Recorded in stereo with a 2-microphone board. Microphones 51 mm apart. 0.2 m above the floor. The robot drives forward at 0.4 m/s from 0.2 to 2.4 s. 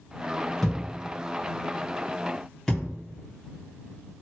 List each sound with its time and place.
0.6 s a thud: 5° left (ahead or behind), 3 m